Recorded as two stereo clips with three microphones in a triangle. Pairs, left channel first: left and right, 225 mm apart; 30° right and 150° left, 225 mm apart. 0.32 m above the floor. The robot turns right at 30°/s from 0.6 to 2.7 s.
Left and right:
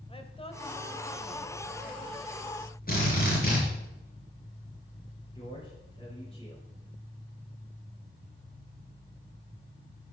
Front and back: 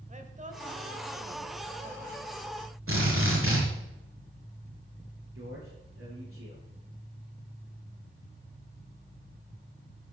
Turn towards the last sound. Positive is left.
turn(degrees=155)